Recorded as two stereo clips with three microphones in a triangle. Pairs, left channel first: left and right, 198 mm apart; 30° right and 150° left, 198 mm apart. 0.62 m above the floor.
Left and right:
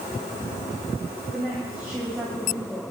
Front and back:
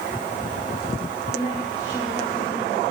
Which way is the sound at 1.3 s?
5° right.